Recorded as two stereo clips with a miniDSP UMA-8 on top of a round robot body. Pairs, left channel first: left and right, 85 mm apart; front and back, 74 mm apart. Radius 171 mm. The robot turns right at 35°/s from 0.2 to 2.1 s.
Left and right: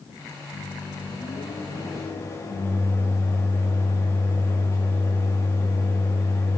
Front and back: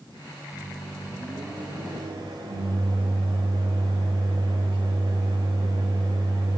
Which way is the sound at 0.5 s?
95° left.